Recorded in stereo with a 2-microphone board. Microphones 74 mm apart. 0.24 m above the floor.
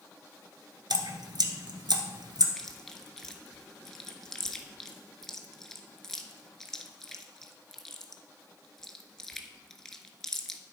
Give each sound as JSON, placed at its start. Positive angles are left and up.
{"t": 0.9, "sound": "dripping", "side_deg": -80, "distance_m": 0.9}
{"t": 2.6, "sound": "chewing", "side_deg": 5, "distance_m": 0.8}